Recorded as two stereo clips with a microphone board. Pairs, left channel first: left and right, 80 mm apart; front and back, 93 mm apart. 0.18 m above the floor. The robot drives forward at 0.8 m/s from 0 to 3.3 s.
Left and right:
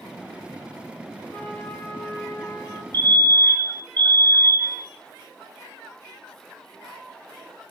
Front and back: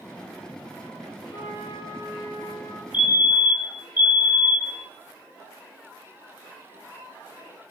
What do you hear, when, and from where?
1.3 s a trumpet: 25° left, 2.0 m; by 2.8 s 55° left, 1.0 m
2.9 s a fire alarm: 120° left, 2.5 m; by 4.8 s 130° left, 2.5 m